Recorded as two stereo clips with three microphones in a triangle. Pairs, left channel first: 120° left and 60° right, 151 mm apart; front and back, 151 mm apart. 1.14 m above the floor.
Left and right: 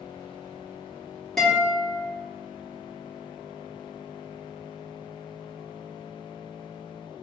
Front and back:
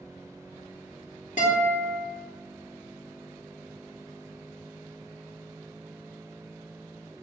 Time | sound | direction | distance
1.4 | a guitar | 30° left | 2.5 m